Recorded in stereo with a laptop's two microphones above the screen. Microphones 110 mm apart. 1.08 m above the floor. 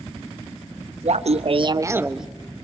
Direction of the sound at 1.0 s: 85° right.